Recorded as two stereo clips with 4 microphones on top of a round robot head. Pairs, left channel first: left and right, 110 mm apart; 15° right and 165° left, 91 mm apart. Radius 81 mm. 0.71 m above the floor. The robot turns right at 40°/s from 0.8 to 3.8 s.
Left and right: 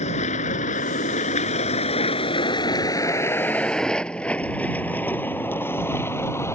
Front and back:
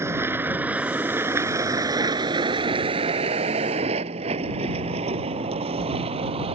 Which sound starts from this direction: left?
A vehicle, at 0.0 s.